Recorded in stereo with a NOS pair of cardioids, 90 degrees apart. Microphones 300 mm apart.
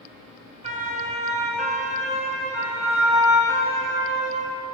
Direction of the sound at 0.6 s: 20° right.